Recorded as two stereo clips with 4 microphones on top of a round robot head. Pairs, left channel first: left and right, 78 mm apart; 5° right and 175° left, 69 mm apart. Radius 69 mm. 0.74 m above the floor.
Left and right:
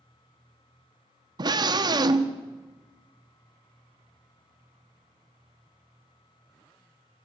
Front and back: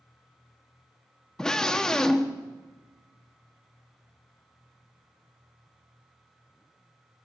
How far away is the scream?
About 1.3 m.